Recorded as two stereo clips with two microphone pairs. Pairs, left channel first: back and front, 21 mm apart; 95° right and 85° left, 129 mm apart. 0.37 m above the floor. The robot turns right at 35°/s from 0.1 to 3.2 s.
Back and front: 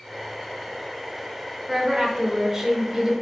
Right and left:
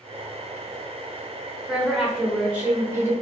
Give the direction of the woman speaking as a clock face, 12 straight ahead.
1 o'clock.